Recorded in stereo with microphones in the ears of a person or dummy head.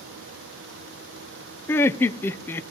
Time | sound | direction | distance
1.7 | laughter | 10° left (ahead or behind) | 0.8 m